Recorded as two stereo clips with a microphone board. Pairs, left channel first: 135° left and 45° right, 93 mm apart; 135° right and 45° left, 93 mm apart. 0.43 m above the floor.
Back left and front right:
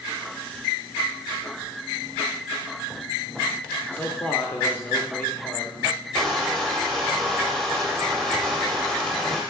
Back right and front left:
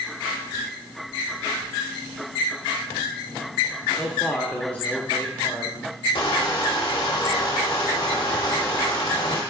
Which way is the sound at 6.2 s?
145° right.